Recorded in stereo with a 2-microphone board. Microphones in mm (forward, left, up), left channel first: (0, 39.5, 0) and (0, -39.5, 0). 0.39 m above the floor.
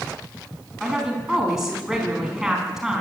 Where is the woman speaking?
5° right (ahead or behind), 4 m.